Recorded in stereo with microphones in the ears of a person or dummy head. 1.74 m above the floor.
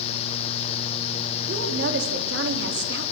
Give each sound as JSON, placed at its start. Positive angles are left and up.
{"t": 1.5, "sound": "a woman speaking", "side_deg": -70, "distance_m": 4.5}